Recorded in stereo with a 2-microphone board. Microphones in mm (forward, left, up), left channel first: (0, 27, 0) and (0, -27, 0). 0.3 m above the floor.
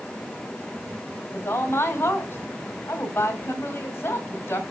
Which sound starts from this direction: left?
A woman speaking, at 1.3 s.